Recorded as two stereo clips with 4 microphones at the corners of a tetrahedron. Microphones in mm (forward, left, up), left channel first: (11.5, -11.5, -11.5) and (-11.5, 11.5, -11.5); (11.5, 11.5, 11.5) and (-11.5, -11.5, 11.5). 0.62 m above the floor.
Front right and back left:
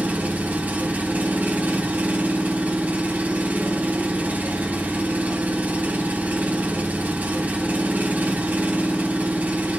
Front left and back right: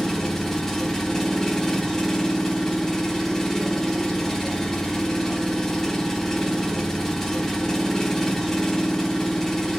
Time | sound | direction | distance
0.0 | an engine running | 120° left | 0.9 m